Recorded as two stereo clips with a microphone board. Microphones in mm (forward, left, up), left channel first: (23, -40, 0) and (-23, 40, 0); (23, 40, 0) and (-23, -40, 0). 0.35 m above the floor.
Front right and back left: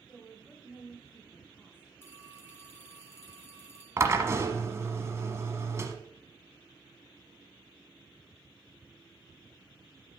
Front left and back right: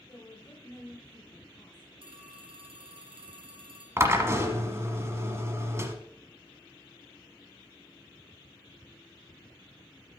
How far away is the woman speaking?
About 1.9 m.